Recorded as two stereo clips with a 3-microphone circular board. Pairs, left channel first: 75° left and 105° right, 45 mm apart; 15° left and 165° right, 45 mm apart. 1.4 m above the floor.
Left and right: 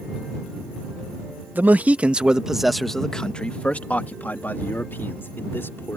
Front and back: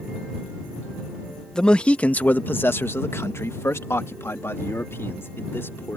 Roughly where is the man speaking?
Ahead right.